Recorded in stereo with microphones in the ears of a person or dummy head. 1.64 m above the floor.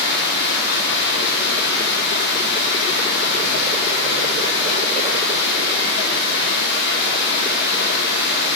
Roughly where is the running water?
Left.